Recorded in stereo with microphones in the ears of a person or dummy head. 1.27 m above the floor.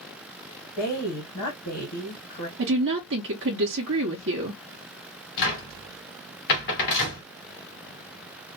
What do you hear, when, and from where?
0.8 s a woman speaking: 55° left (ahead or behind), 1.3 m
2.6 s a woman speaking: 60° right (ahead or behind), 0.7 m
5.4 s a cupboard door: 60° left (ahead or behind), 1.3 m